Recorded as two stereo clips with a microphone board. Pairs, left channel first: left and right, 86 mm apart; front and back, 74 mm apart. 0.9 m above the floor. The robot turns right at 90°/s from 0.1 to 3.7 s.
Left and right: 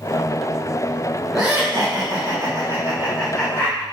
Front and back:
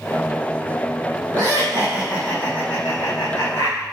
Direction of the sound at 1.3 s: Straight behind.